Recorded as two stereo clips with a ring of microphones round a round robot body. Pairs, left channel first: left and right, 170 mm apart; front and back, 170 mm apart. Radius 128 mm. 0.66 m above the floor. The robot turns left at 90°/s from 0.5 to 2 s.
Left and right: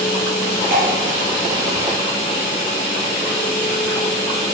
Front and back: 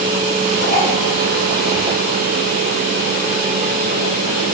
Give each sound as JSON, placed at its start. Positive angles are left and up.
{"t": 0.7, "sound": "dripping", "azimuth_deg": -50, "distance_m": 2.5}